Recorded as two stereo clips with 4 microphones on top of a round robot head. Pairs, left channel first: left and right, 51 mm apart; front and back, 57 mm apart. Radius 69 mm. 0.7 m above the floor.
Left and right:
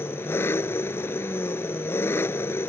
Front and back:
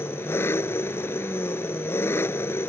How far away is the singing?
I don't hear singing.